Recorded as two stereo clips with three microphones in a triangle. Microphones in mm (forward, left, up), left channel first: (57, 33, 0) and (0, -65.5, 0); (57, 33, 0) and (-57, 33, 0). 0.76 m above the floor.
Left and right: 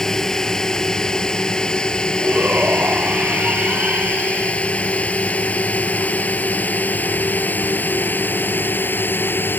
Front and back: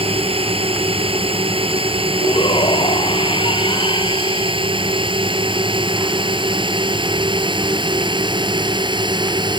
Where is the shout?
45° right.